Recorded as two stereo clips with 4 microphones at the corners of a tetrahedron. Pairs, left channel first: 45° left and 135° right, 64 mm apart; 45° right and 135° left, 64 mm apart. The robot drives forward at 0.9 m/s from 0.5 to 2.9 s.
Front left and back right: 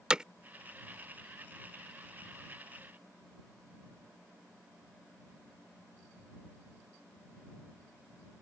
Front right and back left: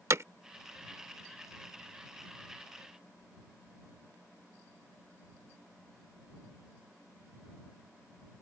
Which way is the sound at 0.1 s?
150° left.